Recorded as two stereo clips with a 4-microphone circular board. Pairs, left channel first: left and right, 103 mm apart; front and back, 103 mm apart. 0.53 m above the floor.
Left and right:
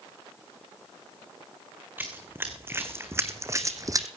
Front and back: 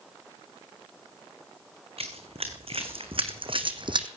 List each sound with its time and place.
2.0 s running footsteps: 160° right, 2.5 m; by 4.1 s 145° right, 1.3 m